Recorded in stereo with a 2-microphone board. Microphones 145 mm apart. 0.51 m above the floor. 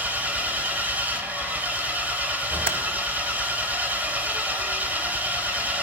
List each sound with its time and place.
0.0 s an engine running: 10° right (ahead or behind), 1.1 m
2.7 s typing on a keyboard: 70° right (ahead or behind), 0.8 m